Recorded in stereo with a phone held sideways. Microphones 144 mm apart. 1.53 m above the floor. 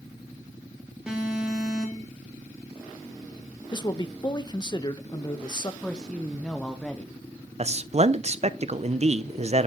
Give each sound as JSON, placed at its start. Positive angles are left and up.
{"t": 1.1, "sound": "an alarm", "side_deg": -5, "distance_m": 3.0}
{"t": 3.7, "sound": "a man speaking", "side_deg": 30, "distance_m": 0.9}
{"t": 5.8, "sound": "a woman speaking", "side_deg": 5, "distance_m": 0.9}
{"t": 7.6, "sound": "a man speaking", "side_deg": -50, "distance_m": 0.6}